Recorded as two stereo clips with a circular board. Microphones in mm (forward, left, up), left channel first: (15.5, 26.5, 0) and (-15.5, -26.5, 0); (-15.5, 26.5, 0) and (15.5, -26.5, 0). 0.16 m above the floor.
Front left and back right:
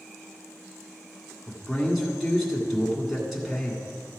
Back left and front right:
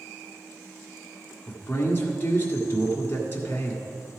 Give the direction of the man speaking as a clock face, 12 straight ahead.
7 o'clock.